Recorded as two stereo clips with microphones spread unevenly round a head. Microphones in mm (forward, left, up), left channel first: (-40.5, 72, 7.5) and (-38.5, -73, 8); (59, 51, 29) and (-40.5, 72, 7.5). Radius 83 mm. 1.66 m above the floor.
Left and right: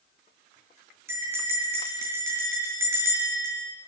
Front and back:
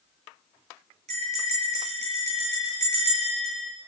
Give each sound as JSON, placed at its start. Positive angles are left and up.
{"t": 1.1, "sound": "a bell", "azimuth_deg": -160, "distance_m": 7.0}